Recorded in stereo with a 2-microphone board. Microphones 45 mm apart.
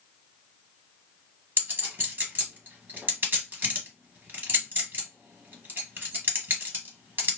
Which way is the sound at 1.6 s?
45° right (ahead or behind).